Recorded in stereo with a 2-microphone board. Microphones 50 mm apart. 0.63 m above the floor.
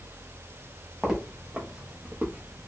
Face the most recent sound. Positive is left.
turn(degrees=-45)  # may be behind; listen again after turning